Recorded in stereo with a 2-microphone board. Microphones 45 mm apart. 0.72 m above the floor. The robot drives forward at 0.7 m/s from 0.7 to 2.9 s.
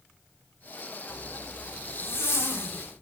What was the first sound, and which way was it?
A zipper, 65° left (ahead or behind).